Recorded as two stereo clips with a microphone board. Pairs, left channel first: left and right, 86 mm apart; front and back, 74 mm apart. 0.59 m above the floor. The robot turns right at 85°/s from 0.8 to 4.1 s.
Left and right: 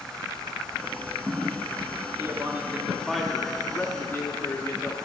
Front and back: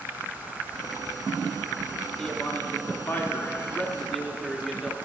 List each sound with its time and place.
2.2 s a man speaking: 80° right, 0.6 m; by 5.0 s 85° left, 0.6 m